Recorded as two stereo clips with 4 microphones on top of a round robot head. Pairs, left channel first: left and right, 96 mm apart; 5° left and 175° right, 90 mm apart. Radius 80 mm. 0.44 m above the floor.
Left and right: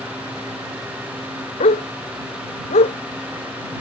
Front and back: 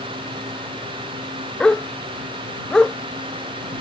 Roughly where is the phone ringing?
No phone ringing in this recording.